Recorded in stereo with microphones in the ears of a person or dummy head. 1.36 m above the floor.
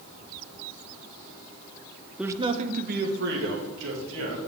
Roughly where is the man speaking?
Centre.